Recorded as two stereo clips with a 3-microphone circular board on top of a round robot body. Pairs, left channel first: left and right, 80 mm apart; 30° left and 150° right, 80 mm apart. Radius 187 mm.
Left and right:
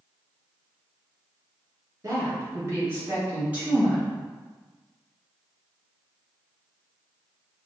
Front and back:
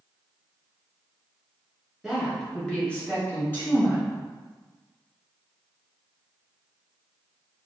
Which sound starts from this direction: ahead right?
A woman speaking, at 2.0 s.